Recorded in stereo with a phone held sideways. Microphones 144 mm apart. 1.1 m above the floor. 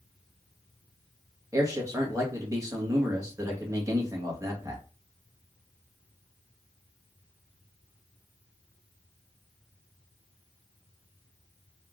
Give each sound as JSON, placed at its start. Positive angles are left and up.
{"t": 1.5, "sound": "a man speaking", "side_deg": -20, "distance_m": 1.6}